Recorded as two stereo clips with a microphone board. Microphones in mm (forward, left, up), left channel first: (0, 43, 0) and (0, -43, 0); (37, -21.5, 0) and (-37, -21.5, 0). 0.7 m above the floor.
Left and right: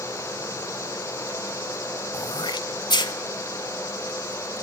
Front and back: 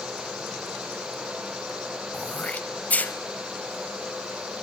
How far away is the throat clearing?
About 0.8 m.